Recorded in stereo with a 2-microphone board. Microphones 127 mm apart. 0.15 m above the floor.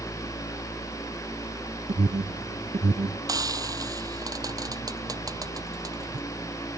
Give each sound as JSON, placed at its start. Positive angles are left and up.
{"t": 1.9, "sound": "an alarm", "side_deg": -65}
{"t": 3.3, "sound": "frying", "side_deg": -30}